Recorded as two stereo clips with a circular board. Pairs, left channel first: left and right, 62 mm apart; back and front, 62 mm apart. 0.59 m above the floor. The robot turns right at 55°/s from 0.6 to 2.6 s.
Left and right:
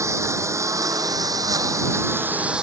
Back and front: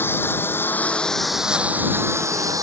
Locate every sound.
0.0 s a lawn mower: 125° right; by 2.6 s 15° right